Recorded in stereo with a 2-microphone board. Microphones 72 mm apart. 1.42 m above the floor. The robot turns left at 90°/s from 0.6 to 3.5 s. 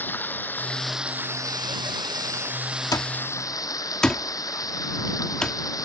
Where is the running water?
25° left; by 5.9 s 125° left.